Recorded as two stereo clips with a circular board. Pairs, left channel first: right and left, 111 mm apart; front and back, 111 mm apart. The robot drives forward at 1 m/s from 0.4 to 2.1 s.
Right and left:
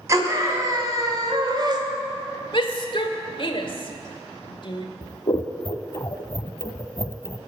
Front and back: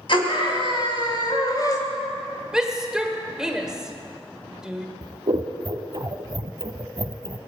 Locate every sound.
0.1 s a scream: 30° left, 3 m; by 1.8 s 50° left, 2 m
2.5 s a shout: 100° right, 1.6 m
5.0 s scissors: 140° right, 0.7 m